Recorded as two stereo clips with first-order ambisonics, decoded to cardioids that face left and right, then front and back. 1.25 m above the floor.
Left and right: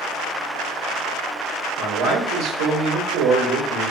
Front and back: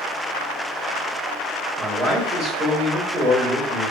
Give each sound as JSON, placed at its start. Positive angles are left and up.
{"t": 1.8, "sound": "a man speaking", "azimuth_deg": -105, "distance_m": 1.5}